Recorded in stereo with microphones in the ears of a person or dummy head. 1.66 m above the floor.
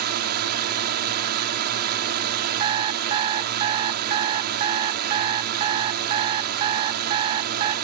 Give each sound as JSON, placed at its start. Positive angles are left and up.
{"t": 0.0, "sound": "a drone", "side_deg": -50}
{"t": 2.6, "sound": "an alarm clock", "side_deg": -25}